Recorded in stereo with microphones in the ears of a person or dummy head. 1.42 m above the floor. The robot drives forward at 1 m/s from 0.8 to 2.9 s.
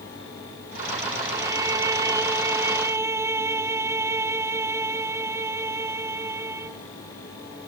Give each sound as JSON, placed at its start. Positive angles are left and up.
{"t": 1.3, "sound": "a violin", "side_deg": -15}